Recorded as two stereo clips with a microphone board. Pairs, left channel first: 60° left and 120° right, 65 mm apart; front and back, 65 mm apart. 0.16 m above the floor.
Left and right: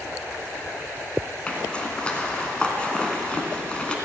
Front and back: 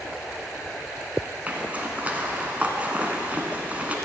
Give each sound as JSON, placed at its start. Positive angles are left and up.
{"t": 1.5, "sound": "a zipper", "azimuth_deg": 125, "distance_m": 1.9}